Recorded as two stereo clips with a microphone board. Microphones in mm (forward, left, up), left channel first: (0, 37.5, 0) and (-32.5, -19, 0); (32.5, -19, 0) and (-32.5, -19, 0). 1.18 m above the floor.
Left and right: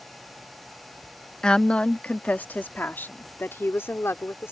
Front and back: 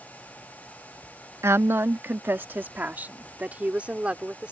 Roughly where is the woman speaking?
Behind left.